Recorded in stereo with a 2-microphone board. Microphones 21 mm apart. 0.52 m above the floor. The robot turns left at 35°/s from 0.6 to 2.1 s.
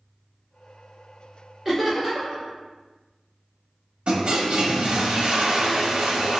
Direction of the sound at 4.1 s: 55° right (ahead or behind).